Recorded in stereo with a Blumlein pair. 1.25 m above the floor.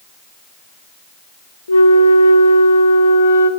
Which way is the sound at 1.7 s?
70° left.